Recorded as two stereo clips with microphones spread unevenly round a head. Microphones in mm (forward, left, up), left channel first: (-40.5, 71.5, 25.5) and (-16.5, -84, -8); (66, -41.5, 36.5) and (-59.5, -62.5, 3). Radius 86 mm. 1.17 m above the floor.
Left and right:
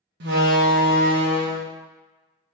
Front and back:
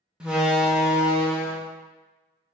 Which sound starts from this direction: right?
A door slam, at 0.2 s.